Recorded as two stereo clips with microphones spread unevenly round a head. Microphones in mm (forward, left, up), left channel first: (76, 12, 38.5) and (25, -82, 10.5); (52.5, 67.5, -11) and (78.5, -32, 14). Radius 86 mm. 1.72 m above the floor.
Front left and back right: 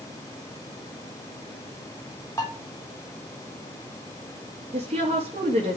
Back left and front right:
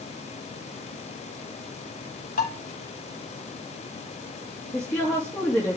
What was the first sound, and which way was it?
Dishes clattering, 135° left.